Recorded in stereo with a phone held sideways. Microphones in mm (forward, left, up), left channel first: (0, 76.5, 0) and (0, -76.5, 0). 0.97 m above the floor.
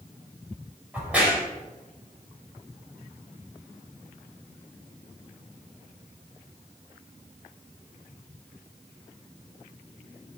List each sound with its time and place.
0.9 s a crack: 10° right (ahead or behind), 5.5 m